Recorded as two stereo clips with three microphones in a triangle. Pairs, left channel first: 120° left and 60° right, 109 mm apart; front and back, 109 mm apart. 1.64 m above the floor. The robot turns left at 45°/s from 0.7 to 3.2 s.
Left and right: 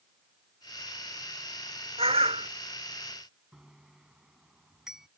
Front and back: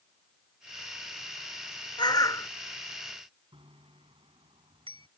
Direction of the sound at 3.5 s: 145° right.